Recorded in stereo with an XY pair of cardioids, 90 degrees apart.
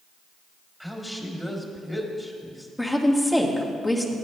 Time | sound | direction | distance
0.8 | a woman speaking | 5° left | 2.5 m
2.8 | a woman speaking | 10° left | 1.9 m